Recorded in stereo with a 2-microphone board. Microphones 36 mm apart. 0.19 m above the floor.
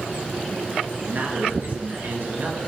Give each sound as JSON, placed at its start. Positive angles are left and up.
{"t": 1.0, "sound": "a man speaking", "side_deg": -65, "distance_m": 3.0}